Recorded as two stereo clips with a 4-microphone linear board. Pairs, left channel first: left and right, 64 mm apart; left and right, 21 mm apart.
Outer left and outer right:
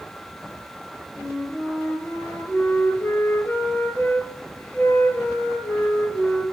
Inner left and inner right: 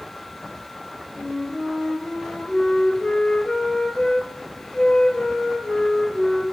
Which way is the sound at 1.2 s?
35° left (ahead or behind).